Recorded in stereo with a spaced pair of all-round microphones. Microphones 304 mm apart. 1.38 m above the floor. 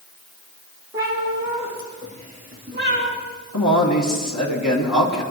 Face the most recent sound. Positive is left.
turn(degrees=65)  # may be behind; listen again after turning